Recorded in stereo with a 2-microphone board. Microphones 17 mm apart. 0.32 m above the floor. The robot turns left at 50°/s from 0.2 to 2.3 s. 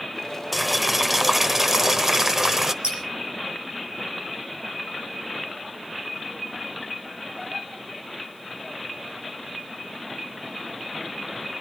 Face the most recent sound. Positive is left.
turn(degrees=-75)  # may be behind; listen again after turning